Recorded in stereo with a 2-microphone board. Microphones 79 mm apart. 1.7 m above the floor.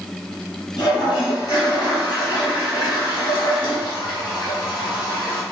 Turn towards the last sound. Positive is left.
turn(degrees=70)  # may be behind; listen again after turning